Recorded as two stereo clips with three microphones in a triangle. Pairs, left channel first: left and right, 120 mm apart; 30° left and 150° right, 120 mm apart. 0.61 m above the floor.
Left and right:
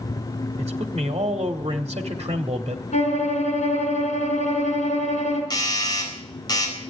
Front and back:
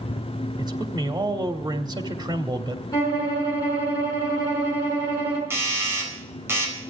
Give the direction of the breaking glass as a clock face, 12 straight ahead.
I don't hear breaking glass.